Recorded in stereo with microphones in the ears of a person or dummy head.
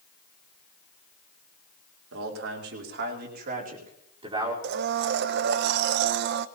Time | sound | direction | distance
2.1 | a man speaking | 85° right | 3 m
4.6 | a blender | 60° right (ahead or behind) | 0.6 m